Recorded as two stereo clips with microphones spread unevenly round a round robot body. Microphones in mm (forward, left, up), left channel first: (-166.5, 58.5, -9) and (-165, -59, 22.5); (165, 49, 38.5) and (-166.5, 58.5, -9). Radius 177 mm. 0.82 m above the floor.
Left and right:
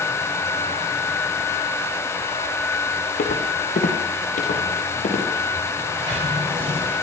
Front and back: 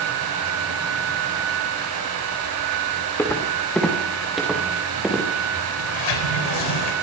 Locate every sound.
3.2 s footsteps: 80° left, 4.5 m; by 5.2 s 90° left, 7.5 m
5.8 s a sliding door: 10° right, 3.5 m